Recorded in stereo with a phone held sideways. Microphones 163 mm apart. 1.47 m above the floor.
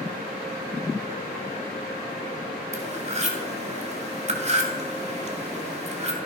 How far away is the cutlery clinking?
About 2 m.